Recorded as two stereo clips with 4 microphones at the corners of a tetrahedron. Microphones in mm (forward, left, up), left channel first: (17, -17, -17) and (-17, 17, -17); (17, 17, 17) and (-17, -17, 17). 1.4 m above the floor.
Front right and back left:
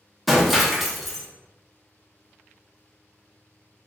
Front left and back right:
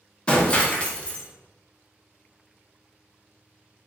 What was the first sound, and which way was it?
Breaking glass, 45° left.